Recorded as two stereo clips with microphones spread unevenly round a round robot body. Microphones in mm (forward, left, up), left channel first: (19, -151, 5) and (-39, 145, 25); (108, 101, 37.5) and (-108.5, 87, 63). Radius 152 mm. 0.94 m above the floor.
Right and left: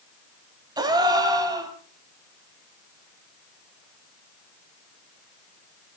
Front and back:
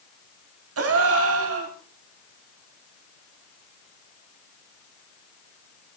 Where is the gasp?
175° left, 2 m.